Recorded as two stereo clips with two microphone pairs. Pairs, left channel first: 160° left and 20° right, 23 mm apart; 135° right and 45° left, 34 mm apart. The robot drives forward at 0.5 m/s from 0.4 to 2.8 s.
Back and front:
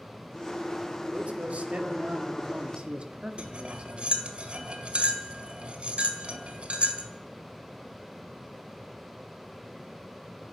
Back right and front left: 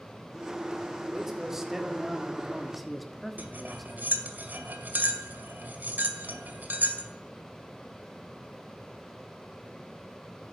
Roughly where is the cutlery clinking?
Ahead.